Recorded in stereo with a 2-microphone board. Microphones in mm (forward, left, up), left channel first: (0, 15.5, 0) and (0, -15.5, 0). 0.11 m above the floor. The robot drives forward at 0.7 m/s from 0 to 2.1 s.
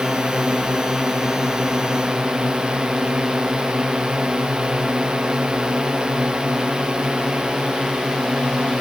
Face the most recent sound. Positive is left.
turn(degrees=-30)  # may be behind; listen again after turning